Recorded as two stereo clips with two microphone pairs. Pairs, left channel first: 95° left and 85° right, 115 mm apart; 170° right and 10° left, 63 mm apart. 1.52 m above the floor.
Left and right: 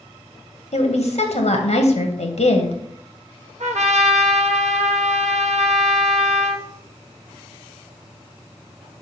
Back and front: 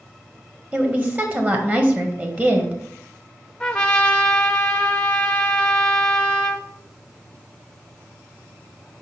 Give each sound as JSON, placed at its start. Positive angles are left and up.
{"t": 0.7, "sound": "a woman speaking", "azimuth_deg": 70, "distance_m": 1.4}
{"t": 3.6, "sound": "a trumpet", "azimuth_deg": -90, "distance_m": 0.8}